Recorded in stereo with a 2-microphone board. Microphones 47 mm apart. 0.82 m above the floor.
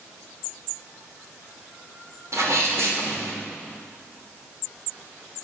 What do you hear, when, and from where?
2.3 s a sneeze: 70° right (ahead or behind), 3 m